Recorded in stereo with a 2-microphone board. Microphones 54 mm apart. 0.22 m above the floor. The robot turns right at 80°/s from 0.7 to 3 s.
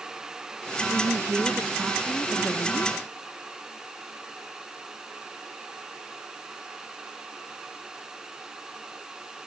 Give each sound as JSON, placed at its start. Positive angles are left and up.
{"t": 0.9, "sound": "a woman speaking", "azimuth_deg": -85}